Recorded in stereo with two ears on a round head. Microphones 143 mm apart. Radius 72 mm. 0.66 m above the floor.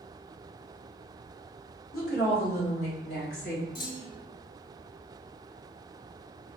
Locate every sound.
1.9 s a woman speaking: 65° left (ahead or behind), 1.4 m; by 3.6 s 75° left (ahead or behind), 2.5 m
3.8 s a clunk: 55° left (ahead or behind), 1.0 m